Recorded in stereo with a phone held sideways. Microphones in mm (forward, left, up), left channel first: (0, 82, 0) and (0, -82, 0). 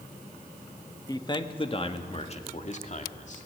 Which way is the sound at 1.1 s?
25° left (ahead or behind).